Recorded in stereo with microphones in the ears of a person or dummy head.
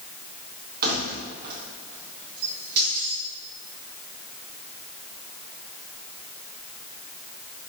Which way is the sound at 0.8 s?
50° right (ahead or behind).